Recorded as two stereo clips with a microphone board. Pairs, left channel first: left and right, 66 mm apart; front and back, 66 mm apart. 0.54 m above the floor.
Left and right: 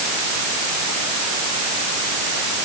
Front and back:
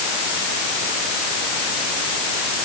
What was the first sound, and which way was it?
Only background noise.